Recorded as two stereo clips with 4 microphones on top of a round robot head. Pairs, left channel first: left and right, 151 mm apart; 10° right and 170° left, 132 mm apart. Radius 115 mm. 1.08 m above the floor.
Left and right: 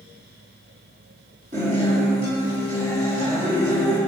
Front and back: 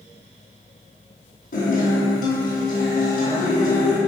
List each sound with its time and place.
1.5 s a guitar: 40° right, 6 m